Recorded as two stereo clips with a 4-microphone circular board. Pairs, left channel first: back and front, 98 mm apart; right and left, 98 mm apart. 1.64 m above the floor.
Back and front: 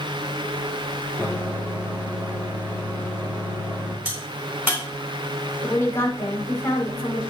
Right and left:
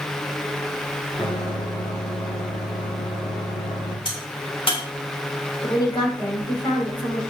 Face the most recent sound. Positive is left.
turn(degrees=-115)